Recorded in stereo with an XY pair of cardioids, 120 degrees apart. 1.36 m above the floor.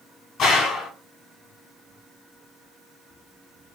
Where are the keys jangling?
I don't hear keys jangling.